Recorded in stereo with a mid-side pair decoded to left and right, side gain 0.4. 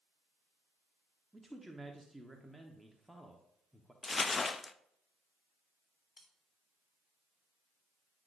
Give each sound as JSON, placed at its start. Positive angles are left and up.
{"t": 1.3, "sound": "a man speaking", "azimuth_deg": -5, "distance_m": 1.2}
{"t": 4.0, "sound": "crumpling", "azimuth_deg": 40, "distance_m": 0.5}
{"t": 6.2, "sound": "cutlery clinking", "azimuth_deg": 40, "distance_m": 3.0}